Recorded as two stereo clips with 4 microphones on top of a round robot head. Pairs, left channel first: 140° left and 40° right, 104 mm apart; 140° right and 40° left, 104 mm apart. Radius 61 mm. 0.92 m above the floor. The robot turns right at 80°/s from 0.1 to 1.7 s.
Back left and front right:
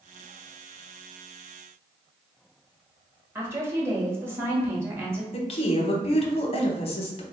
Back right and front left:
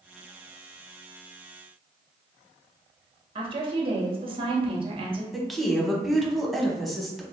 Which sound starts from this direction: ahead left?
A woman speaking, at 3.4 s.